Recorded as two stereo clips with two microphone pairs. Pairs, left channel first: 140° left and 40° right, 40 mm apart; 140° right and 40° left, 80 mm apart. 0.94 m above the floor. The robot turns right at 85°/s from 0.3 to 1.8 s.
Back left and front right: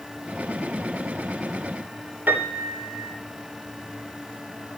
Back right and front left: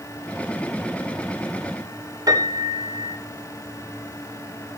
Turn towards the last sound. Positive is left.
turn(degrees=-5)